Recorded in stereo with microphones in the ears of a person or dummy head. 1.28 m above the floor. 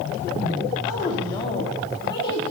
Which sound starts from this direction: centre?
A woman speaking, at 0.9 s.